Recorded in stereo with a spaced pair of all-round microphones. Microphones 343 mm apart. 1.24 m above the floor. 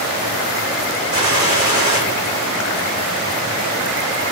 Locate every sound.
1.1 s a gunshot: 80° left, 3.5 m